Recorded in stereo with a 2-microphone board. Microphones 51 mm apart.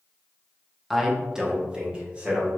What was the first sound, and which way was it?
A man speaking, 5° right (ahead or behind).